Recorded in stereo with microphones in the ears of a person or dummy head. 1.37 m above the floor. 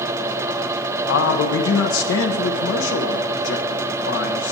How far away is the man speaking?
About 1.0 m.